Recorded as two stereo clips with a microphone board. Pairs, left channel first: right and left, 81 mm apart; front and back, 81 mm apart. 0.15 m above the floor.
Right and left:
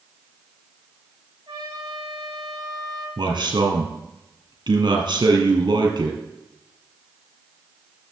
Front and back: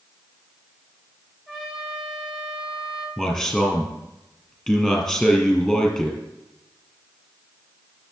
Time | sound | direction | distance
1.5 | a trumpet | 105° left | 5.5 m
3.2 | a man speaking | 90° left | 3 m